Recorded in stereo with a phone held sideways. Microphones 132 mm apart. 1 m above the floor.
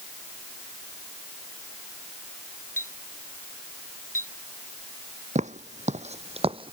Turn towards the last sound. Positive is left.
turn(degrees=-40)  # may be behind; listen again after turning